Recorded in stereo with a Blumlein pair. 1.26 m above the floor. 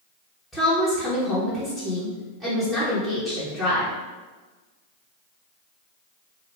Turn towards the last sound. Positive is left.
turn(degrees=5)